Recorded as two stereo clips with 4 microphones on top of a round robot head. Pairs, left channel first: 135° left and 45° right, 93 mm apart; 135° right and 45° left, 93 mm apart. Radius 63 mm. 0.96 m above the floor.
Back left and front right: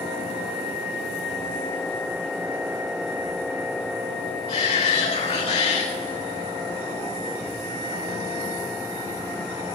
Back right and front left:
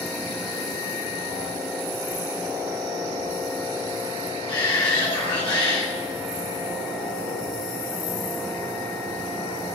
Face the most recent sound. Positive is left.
turn(degrees=155)